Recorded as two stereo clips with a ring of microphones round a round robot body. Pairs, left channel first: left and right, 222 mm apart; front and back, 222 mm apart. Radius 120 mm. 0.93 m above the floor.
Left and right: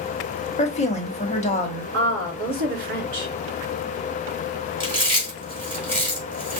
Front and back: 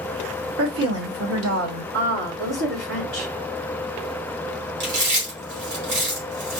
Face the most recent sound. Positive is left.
turn(degrees=-160)